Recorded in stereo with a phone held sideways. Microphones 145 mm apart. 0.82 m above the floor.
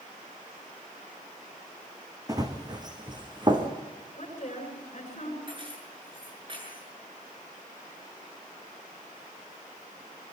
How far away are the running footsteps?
About 3 m.